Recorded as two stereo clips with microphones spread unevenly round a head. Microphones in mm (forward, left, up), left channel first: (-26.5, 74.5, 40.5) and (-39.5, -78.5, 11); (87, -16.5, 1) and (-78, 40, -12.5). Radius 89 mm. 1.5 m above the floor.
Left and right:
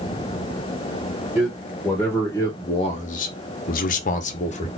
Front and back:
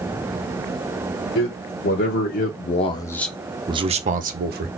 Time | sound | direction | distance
1.4 | a man speaking | straight ahead | 1.4 m